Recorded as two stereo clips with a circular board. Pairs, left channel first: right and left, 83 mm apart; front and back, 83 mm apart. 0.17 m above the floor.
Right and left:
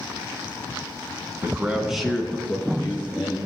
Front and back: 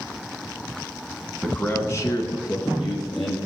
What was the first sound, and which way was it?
A man speaking, 65° left.